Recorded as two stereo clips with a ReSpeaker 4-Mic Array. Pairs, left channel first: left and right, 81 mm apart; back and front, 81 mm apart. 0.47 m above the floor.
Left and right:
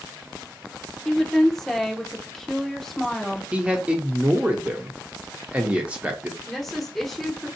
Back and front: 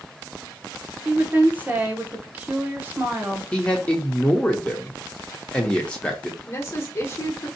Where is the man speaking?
130° right, 0.7 m.